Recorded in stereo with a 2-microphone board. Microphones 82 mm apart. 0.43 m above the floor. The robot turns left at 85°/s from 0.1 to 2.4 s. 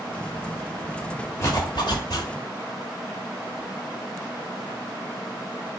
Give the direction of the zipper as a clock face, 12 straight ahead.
8 o'clock.